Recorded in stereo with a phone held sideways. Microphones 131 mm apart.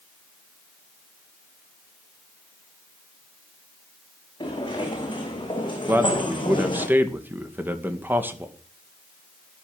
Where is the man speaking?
15° right (ahead or behind), 2 m.